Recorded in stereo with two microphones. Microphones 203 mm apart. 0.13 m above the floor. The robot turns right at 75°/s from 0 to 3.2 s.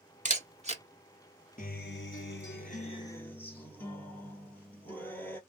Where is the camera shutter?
35° right (ahead or behind), 0.8 m; by 0.8 s 30° right (ahead or behind), 0.8 m.